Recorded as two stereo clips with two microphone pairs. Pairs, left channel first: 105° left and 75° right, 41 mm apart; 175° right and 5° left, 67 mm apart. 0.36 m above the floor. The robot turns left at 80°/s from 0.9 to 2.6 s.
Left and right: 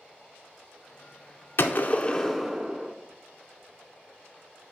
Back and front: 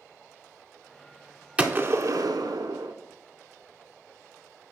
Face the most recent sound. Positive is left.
turn(degrees=-10)